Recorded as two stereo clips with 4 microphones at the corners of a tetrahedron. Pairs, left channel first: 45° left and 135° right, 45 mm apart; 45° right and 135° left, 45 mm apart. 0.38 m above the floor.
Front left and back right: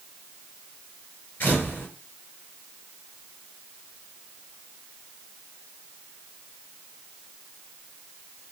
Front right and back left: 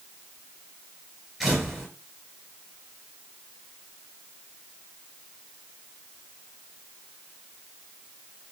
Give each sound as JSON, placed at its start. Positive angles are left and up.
{"t": 1.4, "sound": "a camera shutter", "azimuth_deg": 55, "distance_m": 2.0}